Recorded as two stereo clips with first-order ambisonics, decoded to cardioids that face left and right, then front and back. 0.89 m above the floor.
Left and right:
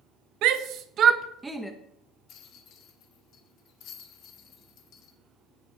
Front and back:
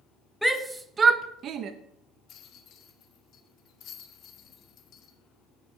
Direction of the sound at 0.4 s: 90° right.